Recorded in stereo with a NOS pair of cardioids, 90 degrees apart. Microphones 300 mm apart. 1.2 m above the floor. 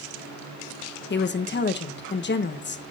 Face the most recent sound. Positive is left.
turn(degrees=40)